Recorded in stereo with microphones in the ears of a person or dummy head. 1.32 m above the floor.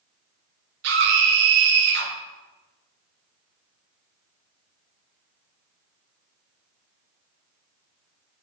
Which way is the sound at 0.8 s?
65° right (ahead or behind).